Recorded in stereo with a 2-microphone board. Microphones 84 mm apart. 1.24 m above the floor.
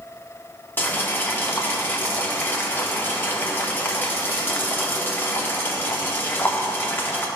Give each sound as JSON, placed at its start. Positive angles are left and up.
{"t": 0.8, "sound": "boiling", "side_deg": 25, "distance_m": 1.7}